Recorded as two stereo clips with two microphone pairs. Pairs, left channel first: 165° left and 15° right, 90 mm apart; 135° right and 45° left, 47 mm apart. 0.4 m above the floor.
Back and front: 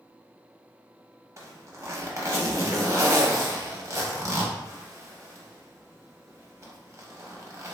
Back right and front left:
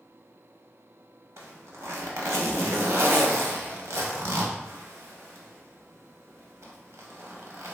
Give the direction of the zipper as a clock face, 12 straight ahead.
11 o'clock.